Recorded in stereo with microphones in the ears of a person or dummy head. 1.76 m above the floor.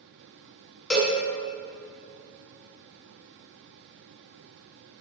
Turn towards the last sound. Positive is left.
turn(degrees=5)  # may be behind; listen again after turning